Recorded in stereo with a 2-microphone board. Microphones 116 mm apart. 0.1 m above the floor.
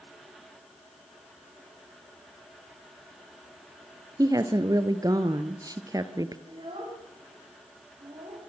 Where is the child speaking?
55° right (ahead or behind), 6.5 m.